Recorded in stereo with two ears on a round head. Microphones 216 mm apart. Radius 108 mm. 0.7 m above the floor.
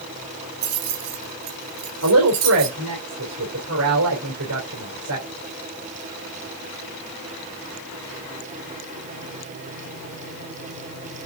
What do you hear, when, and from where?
0.6 s keys jangling: 80° right, 3 m; by 2.8 s 70° right (ahead or behind), 4.5 m
2.0 s a woman speaking: 65° right (ahead or behind), 3 m